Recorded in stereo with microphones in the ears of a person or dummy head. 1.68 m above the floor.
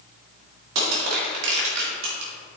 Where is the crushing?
70° right (ahead or behind), 2.5 m.